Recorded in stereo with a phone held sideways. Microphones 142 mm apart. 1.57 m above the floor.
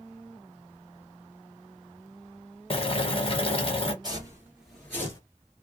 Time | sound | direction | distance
2.7 | boiling | 45° left (ahead or behind) | 0.7 m
4.0 | footsteps | 30° right (ahead or behind) | 1.8 m